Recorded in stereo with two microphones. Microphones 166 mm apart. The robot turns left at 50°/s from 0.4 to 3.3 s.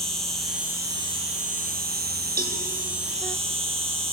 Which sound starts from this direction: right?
A cowbell, at 2.4 s.